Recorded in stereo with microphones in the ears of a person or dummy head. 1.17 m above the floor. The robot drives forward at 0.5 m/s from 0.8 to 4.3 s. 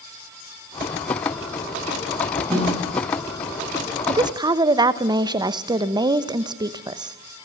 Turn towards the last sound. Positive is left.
turn(degrees=-15)  # may be behind; listen again after turning